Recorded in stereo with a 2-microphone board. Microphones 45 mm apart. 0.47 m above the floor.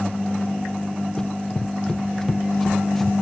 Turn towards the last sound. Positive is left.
turn(degrees=5)  # may be behind; listen again after turning